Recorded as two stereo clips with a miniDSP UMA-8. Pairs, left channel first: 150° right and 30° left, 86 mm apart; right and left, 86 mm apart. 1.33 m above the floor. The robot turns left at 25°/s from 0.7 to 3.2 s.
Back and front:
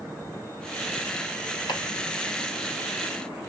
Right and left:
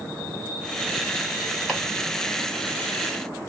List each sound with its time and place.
1.7 s chopping: 175° right, 1.7 m; by 1.8 s straight behind, 1.7 m